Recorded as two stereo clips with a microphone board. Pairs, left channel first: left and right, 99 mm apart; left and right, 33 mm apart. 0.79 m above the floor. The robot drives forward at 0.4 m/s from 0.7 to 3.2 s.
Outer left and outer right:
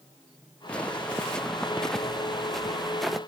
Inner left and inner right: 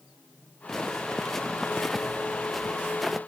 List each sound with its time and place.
0.7 s footsteps: 10° left (ahead or behind); by 3.2 s centre (ahead or behind)